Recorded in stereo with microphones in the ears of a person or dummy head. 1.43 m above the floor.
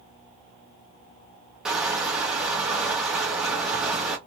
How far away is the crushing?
About 0.9 m.